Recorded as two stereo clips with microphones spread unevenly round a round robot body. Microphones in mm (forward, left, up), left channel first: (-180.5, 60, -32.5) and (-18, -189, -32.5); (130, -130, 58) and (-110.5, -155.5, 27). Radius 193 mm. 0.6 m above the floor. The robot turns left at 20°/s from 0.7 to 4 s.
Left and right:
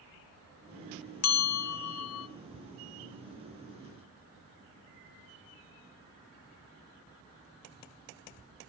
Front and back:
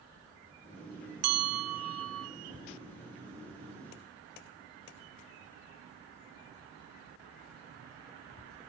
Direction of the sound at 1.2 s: 155° left.